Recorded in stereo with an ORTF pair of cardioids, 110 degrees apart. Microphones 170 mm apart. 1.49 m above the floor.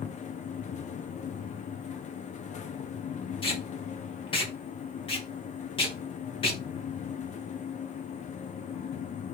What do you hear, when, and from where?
0.0 s a fan: 45° left, 0.8 m
3.4 s tape being pulled: 30° left, 1.6 m